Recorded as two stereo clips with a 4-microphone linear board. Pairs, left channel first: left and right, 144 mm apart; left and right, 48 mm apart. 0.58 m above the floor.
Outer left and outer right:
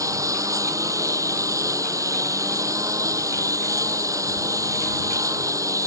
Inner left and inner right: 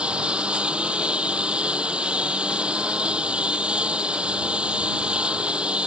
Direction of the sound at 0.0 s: 25° right (ahead or behind).